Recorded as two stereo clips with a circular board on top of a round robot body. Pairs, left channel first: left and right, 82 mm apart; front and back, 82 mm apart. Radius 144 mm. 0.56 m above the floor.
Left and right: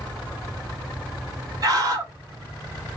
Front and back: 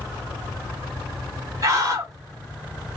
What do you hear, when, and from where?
1.6 s a scream: 130° right, 2 m